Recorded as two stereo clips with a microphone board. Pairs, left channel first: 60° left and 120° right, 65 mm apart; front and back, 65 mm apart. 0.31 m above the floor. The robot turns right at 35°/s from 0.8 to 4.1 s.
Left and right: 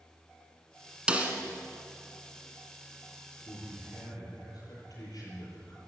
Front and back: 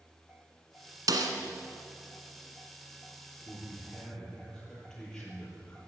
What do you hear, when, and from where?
1.1 s a snare drum: 165° left, 1.7 m; by 1.3 s 175° left, 1.7 m
3.5 s a man speaking: 45° left, 6 m; by 5.8 s 70° left, 6 m